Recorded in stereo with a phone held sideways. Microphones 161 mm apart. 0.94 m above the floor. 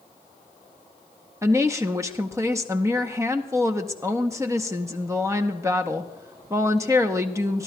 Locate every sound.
1.4 s a woman speaking: 20° right (ahead or behind), 0.7 m